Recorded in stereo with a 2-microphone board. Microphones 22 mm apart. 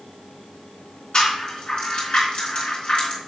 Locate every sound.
1.1 s a rattle: 55° left (ahead or behind), 2.5 m